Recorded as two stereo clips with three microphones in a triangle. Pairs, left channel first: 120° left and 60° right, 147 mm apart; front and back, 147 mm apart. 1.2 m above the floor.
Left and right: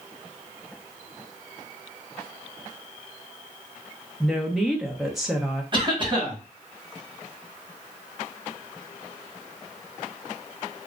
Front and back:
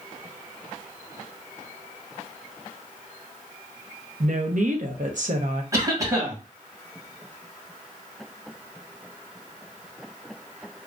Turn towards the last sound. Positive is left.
turn(degrees=-115)